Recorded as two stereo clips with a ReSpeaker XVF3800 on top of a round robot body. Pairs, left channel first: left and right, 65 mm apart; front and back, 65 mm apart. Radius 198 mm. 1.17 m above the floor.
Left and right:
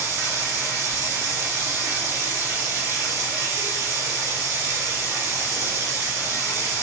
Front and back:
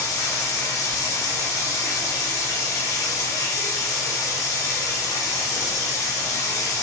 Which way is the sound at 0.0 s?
40° right.